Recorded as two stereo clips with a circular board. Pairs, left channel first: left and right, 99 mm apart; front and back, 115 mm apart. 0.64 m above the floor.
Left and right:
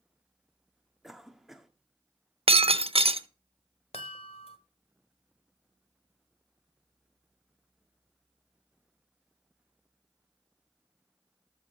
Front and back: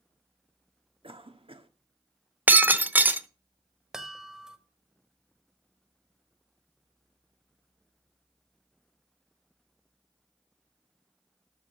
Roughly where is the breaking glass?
Right.